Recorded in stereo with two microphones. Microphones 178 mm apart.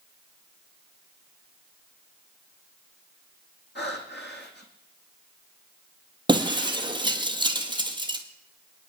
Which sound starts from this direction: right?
Breaking glass, at 6.3 s.